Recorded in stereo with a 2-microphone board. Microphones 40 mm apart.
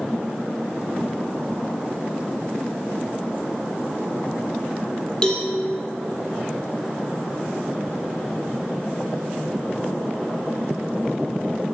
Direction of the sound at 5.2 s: 20° left (ahead or behind).